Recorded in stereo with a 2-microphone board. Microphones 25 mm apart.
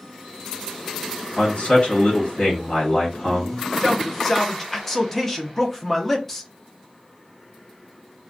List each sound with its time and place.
1.4 s a man speaking: 50° left (ahead or behind), 1.4 m
3.8 s a man speaking: 10° left (ahead or behind), 0.6 m